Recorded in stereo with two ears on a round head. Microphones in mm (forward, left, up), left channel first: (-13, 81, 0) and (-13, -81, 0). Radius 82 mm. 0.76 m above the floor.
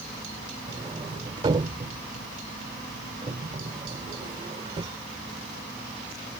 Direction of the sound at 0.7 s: 25° right (ahead or behind).